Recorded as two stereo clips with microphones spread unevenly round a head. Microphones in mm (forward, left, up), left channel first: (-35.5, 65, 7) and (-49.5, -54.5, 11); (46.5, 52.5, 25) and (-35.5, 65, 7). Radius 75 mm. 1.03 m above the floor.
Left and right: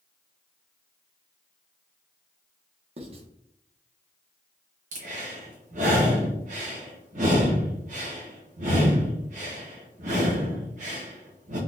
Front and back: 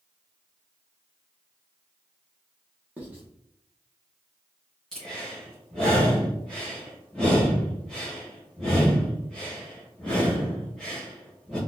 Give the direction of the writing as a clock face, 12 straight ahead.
4 o'clock.